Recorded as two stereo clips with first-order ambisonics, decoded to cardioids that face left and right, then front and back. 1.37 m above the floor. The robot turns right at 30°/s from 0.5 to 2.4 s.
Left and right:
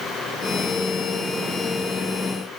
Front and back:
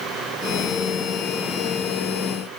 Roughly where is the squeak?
I don't hear a squeak.